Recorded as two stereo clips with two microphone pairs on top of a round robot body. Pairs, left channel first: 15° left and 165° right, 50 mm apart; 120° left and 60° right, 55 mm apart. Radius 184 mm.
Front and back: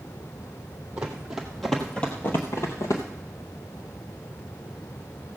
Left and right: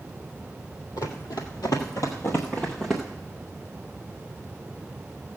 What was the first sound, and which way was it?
Running footsteps, 130° left.